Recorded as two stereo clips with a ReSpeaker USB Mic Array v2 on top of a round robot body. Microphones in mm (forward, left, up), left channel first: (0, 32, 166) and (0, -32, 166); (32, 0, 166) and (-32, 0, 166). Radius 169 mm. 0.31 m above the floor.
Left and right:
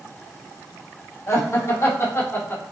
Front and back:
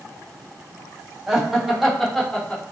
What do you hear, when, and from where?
1.3 s laughter: 105° left, 1.8 m; by 2.6 s 65° left, 1.6 m